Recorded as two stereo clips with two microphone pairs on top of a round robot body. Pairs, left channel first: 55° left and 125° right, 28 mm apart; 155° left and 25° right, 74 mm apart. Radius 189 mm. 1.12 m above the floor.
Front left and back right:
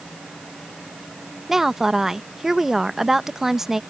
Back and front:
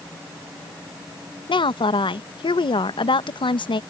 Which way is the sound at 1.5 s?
160° left.